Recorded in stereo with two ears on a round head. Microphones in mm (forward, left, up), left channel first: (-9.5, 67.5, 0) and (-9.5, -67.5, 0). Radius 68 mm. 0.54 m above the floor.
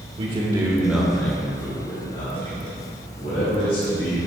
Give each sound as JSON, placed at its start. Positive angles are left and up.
{"t": 0.2, "sound": "a man speaking", "side_deg": -40, "distance_m": 1.7}